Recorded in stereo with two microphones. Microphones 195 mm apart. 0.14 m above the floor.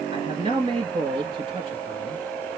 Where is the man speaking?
25° right (ahead or behind), 3 m.